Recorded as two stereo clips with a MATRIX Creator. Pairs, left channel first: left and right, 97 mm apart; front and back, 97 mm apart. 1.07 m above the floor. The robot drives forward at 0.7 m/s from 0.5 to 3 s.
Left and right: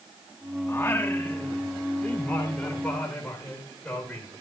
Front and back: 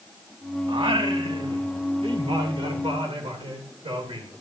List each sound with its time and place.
0.7 s singing: 150° left, 1.2 m; by 4.3 s 170° left, 2.5 m